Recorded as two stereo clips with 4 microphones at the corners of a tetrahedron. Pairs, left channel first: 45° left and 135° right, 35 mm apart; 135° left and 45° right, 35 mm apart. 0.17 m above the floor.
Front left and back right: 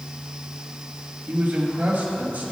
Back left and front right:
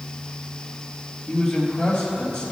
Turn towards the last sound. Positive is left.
turn(degrees=180)